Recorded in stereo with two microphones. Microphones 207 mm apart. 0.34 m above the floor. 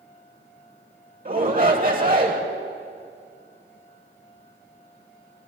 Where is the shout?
45° right (ahead or behind), 1.3 m.